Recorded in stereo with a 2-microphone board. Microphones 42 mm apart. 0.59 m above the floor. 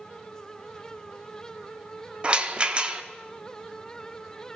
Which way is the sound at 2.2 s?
25° right (ahead or behind).